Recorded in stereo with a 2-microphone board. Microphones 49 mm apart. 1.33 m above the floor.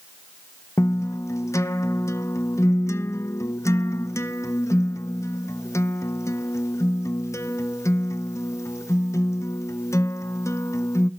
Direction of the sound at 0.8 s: 80° left.